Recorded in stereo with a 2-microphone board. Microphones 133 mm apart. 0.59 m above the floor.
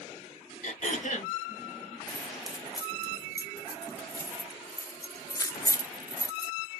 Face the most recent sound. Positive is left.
turn(degrees=25)  # may be behind; listen again after turning